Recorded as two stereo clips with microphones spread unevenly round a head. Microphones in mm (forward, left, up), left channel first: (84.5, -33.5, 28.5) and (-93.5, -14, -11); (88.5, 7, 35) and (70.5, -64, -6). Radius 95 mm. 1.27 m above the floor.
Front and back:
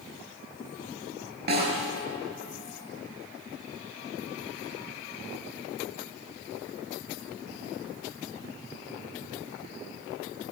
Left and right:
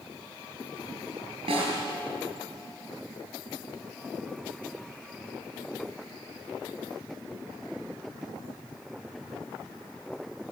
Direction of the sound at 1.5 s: 150° right.